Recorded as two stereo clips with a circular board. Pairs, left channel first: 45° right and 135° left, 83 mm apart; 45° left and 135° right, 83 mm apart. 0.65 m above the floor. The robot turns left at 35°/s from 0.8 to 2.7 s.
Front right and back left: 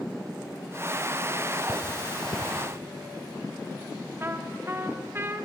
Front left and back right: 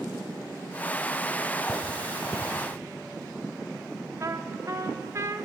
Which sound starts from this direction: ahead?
Cutlery clinking, at 1.7 s.